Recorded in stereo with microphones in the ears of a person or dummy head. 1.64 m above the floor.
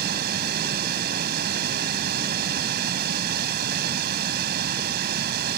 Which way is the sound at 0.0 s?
65° right (ahead or behind).